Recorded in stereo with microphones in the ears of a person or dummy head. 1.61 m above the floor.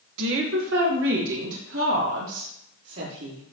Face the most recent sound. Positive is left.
turn(degrees=-75)  # may be behind; listen again after turning